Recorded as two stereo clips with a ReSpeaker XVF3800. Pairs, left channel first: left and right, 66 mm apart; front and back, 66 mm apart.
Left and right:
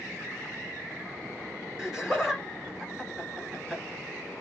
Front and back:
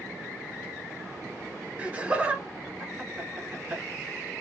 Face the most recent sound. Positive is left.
turn(degrees=-150)